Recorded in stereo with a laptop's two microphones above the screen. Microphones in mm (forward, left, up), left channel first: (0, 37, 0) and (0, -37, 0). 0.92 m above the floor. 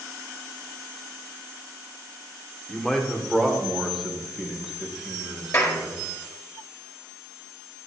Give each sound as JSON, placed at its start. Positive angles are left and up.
{"t": 2.7, "sound": "a man speaking", "side_deg": 10, "distance_m": 1.9}
{"t": 5.5, "sound": "a clap", "side_deg": 40, "distance_m": 1.8}